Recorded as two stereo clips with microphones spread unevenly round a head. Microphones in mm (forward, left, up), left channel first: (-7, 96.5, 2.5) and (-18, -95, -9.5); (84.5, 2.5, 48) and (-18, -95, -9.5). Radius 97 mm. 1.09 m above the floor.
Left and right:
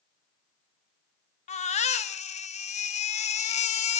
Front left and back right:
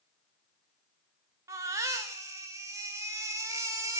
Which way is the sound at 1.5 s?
145° left.